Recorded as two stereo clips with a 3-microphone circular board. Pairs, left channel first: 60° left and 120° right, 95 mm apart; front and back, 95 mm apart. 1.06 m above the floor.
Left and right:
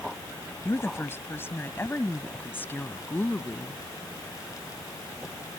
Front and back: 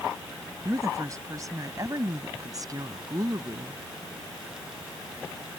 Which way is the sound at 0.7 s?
125° left.